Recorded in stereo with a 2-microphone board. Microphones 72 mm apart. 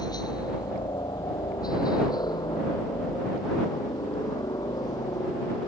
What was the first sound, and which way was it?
A helicopter, 70° left (ahead or behind).